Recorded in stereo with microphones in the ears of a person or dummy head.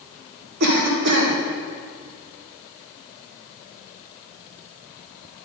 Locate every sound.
0.6 s a cough: 60° right (ahead or behind), 1.2 m